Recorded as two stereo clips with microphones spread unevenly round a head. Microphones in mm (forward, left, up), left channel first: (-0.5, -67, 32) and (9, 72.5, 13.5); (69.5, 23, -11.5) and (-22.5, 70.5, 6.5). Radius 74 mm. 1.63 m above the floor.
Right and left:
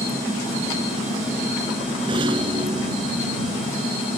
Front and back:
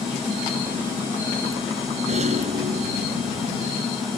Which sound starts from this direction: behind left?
A rattle, at 2.1 s.